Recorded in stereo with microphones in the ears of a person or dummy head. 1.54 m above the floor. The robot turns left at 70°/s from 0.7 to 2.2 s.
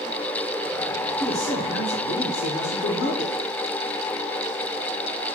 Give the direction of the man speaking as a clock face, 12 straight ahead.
7 o'clock.